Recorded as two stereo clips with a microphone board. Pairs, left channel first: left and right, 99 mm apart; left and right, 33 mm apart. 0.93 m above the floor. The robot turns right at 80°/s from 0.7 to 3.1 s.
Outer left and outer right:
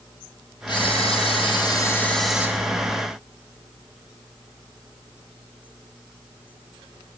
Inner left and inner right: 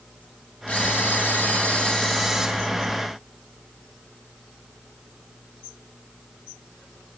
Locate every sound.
0.7 s a camera shutter: 55° left, 2.5 m; by 2.5 s 160° right, 2.5 m